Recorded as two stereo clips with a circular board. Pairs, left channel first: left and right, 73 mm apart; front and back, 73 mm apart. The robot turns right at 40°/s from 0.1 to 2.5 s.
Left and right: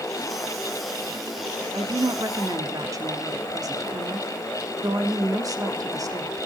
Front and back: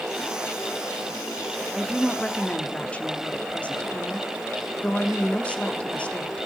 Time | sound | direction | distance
1.7 | a woman speaking | 100° right | 1.2 m